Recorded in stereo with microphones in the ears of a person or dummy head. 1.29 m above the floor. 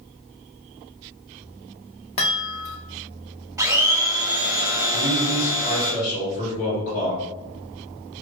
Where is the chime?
30° left (ahead or behind), 0.6 m.